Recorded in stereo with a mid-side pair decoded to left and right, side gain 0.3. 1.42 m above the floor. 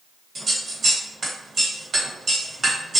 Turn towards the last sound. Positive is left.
turn(degrees=-55)